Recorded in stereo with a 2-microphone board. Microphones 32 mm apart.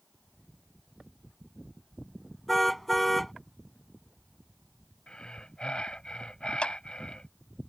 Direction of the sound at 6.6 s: 40° left (ahead or behind).